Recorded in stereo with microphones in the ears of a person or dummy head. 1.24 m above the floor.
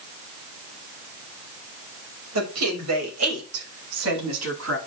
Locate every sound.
2.4 s a woman speaking: 90° right, 5 m; by 4.8 s 75° right (ahead or behind), 7.5 m